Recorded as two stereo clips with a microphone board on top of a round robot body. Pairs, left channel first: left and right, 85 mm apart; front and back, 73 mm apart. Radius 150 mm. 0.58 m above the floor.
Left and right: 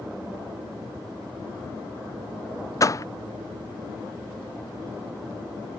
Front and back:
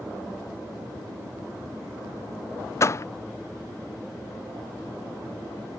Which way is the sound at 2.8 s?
45° left.